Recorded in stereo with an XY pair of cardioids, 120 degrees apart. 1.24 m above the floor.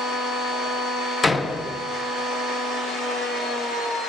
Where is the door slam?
25° left, 0.6 m.